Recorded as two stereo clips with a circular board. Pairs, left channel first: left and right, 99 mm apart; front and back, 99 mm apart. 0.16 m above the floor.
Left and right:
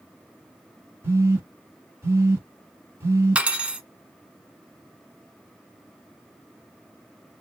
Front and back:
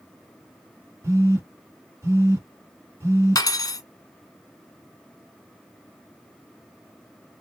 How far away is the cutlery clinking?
About 0.8 m.